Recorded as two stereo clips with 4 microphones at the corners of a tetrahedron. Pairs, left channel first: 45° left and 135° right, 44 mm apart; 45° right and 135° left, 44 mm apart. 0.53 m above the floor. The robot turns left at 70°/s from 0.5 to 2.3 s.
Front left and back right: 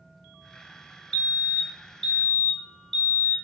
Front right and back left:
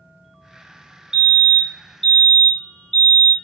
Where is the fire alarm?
90° left, 1.7 m; by 3.3 s 5° left, 1.7 m.